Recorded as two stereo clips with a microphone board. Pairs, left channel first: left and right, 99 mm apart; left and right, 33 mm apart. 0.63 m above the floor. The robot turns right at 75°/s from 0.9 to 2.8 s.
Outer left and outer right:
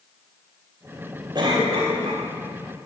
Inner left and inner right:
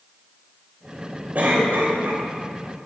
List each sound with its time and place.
1.4 s a cough: 130° right, 2.5 m; by 2.2 s 65° right, 2.5 m